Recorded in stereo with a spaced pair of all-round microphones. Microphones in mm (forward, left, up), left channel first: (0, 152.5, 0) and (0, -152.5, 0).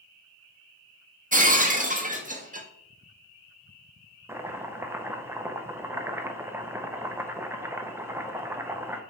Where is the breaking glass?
25° right (ahead or behind), 0.9 m.